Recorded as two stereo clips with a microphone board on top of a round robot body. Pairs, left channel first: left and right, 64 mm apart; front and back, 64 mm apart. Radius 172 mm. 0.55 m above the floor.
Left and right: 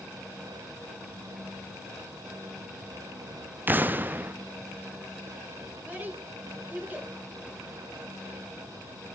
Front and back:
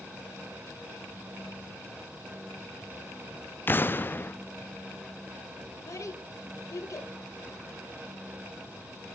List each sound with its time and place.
3.7 s an explosion: 40° right, 0.8 m
5.8 s a child speaking: 30° right, 3 m